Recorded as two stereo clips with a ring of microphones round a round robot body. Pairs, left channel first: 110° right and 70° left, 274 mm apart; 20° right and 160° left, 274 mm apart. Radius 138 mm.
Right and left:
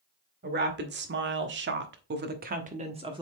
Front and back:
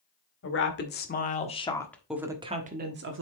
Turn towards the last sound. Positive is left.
turn(degrees=135)